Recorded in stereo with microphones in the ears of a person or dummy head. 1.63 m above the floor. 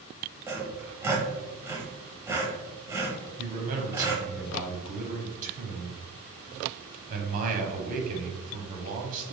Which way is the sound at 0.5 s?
15° right (ahead or behind).